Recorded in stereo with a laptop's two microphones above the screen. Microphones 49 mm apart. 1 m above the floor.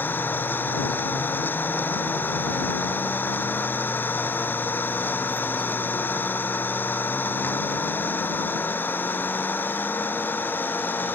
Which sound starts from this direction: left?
An engine running, at 0.0 s.